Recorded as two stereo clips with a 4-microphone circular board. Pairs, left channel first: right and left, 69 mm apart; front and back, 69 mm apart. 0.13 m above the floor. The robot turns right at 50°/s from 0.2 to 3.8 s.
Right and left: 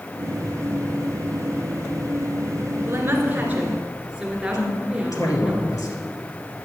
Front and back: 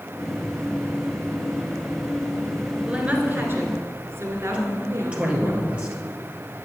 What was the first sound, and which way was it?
A woman speaking, 115° left.